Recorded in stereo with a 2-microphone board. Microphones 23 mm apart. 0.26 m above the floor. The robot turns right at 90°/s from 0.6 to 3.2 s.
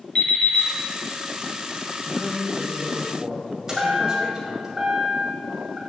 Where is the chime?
20° right (ahead or behind), 1.5 m.